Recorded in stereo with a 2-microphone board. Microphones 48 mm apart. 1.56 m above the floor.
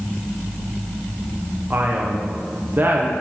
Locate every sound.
1.7 s a man speaking: 40° right (ahead or behind), 0.8 m